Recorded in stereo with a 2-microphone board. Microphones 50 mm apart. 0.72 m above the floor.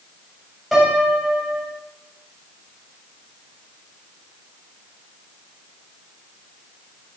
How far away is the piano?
About 3.5 m.